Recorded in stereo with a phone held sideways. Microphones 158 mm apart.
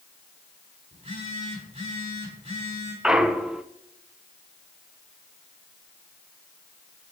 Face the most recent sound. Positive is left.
turn(degrees=-5)  # may be behind; listen again after turning